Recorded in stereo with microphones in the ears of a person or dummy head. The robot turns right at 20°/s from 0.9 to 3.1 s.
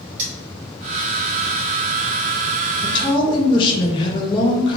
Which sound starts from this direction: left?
A woman speaking, at 2.8 s.